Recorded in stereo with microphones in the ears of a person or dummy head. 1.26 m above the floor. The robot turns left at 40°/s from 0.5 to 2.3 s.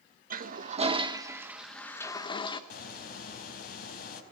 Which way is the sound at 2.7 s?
65° left (ahead or behind).